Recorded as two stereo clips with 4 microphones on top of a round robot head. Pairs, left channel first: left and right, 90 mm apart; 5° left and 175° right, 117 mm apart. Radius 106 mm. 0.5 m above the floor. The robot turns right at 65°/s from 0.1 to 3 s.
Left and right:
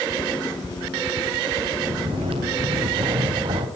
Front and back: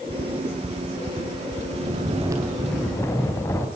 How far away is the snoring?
About 3.5 m.